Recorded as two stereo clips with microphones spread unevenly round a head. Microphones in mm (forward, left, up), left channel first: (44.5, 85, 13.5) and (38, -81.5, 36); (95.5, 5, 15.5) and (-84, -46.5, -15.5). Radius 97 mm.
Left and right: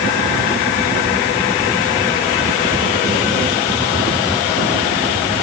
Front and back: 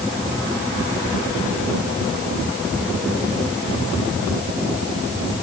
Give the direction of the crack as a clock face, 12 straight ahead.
No crack in this recording.